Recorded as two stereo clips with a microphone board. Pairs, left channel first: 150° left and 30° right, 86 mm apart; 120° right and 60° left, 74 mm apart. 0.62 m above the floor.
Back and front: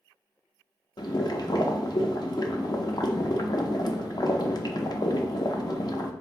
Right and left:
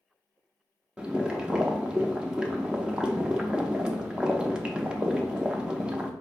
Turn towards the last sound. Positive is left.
turn(degrees=135)